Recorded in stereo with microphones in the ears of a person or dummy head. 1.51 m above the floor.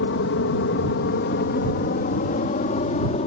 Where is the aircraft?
65° left (ahead or behind); by 3.3 s 35° left (ahead or behind).